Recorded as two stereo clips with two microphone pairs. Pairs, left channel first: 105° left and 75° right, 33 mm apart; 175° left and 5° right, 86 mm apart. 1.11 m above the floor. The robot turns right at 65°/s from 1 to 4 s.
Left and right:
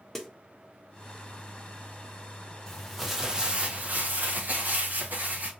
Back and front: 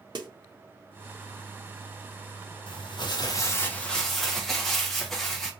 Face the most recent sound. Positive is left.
turn(degrees=-95)